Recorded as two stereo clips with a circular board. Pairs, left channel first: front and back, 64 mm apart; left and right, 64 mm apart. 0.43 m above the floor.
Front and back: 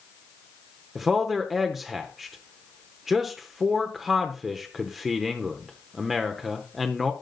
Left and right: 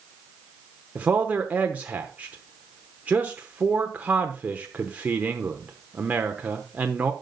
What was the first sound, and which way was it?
A man speaking, 100° right.